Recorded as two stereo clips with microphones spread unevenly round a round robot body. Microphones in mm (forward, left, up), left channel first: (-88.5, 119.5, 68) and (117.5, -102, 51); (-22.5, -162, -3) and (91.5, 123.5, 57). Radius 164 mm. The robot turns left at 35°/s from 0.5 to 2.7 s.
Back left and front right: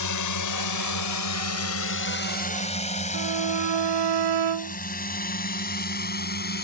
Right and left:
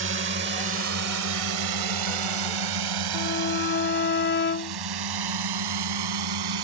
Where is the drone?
125° left; by 6.7 s 75° left.